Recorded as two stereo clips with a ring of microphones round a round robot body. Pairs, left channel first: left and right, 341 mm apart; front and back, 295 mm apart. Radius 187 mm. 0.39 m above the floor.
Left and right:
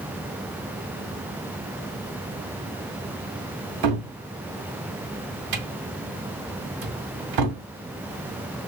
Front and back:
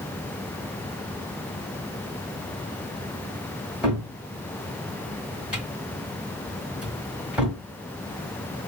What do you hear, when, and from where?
3.8 s a cupboard door: 95° right, 1.5 m